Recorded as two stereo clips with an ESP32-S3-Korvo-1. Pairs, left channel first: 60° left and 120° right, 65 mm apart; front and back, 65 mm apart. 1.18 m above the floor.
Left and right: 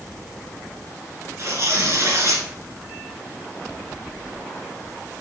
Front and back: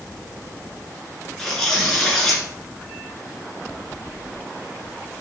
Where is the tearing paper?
80° right, 2.5 m.